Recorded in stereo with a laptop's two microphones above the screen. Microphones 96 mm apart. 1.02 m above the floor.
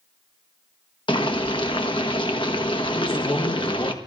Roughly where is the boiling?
Left.